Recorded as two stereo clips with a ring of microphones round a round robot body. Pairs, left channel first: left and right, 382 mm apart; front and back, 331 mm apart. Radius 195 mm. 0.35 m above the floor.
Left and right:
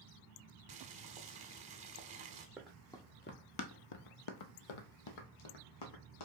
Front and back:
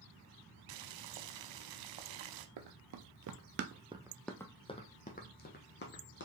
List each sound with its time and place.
0.7 s boiling: 165° right, 0.5 m
2.6 s running footsteps: 175° right, 0.7 m; by 6.2 s 55° left, 1.4 m